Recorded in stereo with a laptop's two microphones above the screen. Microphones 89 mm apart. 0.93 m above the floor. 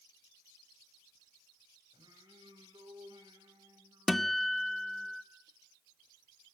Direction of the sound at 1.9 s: 55° right (ahead or behind).